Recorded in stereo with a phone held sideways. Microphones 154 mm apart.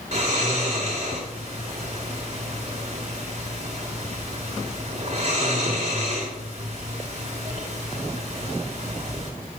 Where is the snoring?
45° right (ahead or behind), 2 m.